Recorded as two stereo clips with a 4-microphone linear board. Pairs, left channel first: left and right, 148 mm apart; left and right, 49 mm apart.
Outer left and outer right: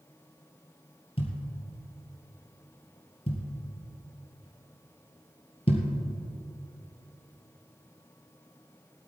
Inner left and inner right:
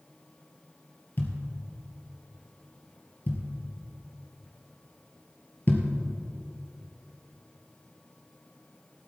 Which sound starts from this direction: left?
A thud, at 1.2 s.